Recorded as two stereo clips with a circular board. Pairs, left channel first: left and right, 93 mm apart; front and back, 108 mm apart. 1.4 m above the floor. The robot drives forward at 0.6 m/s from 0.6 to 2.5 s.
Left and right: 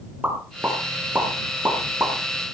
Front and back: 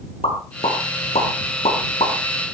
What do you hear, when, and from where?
0.2 s a pop: 20° right, 5 m; by 2.1 s 25° right, 4 m